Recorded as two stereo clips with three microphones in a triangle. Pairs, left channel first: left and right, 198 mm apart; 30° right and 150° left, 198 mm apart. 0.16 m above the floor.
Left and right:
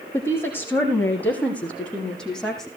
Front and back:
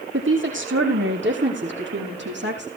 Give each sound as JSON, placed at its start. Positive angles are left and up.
{"t": 0.1, "sound": "a woman speaking", "azimuth_deg": 170, "distance_m": 6.5}